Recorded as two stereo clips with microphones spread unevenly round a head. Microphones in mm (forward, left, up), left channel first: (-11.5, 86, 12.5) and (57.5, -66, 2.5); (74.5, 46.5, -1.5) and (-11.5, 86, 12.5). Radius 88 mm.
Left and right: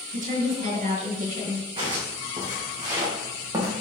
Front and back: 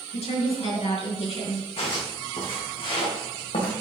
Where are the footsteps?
Straight ahead, 4.5 m; by 3.7 s 5° left, 3.5 m.